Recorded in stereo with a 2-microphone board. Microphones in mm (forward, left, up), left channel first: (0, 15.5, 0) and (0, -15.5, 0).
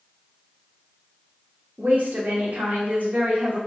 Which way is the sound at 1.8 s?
60° right (ahead or behind).